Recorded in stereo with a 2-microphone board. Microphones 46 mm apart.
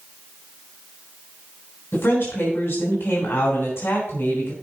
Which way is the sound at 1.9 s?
65° left (ahead or behind).